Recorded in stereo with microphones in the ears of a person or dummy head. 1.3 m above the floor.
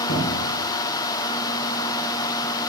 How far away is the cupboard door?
About 2.5 m.